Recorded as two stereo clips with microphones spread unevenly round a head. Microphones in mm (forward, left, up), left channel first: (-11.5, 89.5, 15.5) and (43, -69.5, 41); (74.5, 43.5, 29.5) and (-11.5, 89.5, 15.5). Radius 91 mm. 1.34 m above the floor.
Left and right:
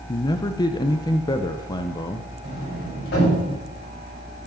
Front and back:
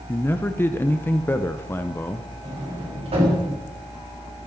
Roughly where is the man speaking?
Ahead left.